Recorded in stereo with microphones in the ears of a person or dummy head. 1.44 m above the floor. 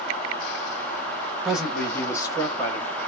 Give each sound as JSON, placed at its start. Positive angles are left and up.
{"t": 1.4, "sound": "a man speaking", "side_deg": 0, "distance_m": 1.2}